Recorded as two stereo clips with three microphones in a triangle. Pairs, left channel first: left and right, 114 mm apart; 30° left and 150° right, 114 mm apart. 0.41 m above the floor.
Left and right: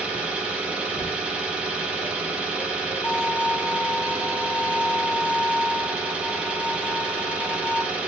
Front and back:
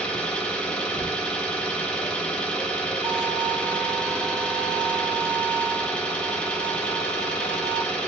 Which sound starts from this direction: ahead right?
An engine running, at 0.0 s.